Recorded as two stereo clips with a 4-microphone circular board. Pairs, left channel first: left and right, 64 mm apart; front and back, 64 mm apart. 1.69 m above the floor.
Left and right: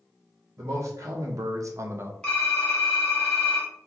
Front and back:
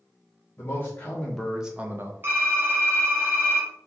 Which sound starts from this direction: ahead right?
A man speaking, at 0.6 s.